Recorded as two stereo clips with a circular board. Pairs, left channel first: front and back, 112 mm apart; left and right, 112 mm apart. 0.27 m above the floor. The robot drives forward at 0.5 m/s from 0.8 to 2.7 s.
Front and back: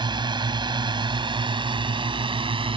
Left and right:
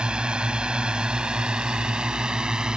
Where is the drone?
170° right.